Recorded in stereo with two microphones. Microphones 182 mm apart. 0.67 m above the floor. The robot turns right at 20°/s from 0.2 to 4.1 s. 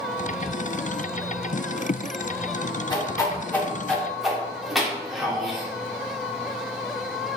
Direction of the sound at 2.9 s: 25° left (ahead or behind).